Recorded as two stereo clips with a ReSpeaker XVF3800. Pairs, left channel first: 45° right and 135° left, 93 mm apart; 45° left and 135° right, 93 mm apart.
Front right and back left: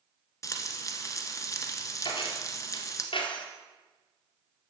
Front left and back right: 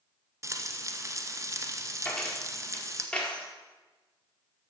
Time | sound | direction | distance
0.4 | frying | 90° right | 1.1 m
2.0 | keys jangling | 30° right | 1.9 m